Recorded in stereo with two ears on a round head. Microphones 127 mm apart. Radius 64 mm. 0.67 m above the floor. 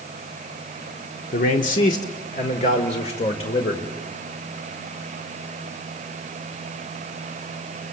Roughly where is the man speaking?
Left.